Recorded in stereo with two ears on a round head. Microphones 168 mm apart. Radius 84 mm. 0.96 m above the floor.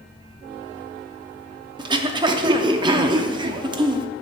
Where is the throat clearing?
25° right (ahead or behind), 0.5 m.